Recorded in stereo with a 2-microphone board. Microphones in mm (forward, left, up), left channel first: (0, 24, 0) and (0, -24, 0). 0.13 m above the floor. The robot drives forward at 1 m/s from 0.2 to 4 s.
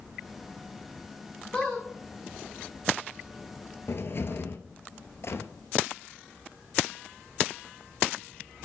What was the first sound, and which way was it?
A squeak, 15° left (ahead or behind).